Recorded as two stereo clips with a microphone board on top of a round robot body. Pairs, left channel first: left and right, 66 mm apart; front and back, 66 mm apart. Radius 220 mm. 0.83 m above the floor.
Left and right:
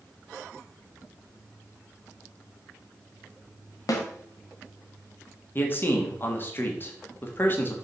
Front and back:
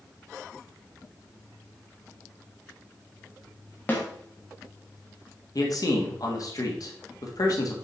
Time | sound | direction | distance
3.9 | a snare drum | 65° left | 1.6 m
5.5 | a man speaking | 30° left | 1.6 m